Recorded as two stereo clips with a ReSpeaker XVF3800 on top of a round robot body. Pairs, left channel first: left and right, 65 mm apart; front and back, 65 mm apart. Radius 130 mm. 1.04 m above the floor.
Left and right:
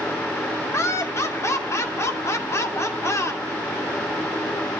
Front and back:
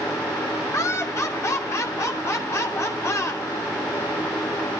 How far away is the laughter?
About 2.5 m.